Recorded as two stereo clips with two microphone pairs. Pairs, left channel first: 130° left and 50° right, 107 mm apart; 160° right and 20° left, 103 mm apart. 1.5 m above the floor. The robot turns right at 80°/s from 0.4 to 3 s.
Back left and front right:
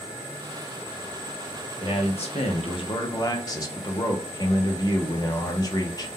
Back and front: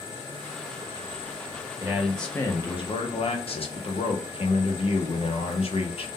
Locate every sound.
1.8 s a man speaking: 90° left, 0.8 m; by 6.1 s 175° right, 0.8 m